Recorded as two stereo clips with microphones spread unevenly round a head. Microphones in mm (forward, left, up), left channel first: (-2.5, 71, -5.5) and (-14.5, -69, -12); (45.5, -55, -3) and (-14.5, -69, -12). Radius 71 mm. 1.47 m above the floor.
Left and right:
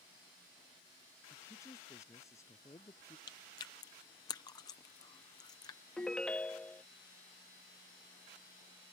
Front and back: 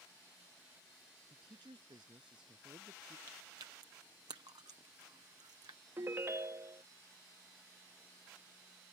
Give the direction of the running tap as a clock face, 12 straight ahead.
No running tap in this recording.